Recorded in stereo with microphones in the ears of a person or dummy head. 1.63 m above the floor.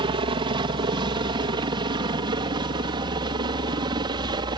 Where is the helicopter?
25° right (ahead or behind).